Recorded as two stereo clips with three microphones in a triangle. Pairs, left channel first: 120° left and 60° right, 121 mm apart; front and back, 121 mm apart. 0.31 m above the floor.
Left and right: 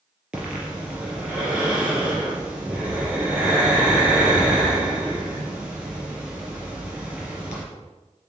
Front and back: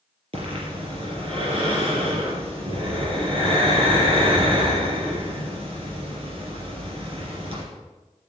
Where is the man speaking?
No man speaking in this recording.